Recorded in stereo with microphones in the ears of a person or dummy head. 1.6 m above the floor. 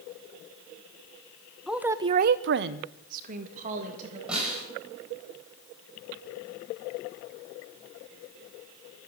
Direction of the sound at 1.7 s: 5° right (ahead or behind).